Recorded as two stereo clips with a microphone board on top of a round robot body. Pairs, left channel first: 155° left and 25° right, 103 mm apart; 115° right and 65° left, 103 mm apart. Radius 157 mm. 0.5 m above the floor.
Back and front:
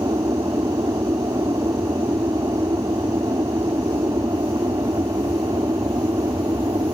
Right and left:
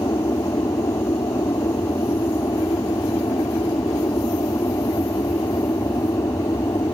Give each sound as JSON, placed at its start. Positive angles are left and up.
{"t": 0.0, "sound": "an aircraft", "azimuth_deg": -65}